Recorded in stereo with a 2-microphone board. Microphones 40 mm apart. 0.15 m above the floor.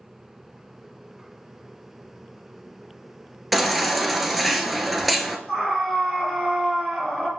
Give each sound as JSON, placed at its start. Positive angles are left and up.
{"t": 3.5, "sound": "a baby crying", "side_deg": 0, "distance_m": 0.9}
{"t": 5.5, "sound": "a scream", "side_deg": 5, "distance_m": 2.0}